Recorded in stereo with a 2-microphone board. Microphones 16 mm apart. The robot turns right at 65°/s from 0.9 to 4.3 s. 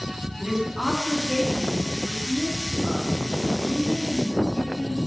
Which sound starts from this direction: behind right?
A woman speaking, at 0.4 s.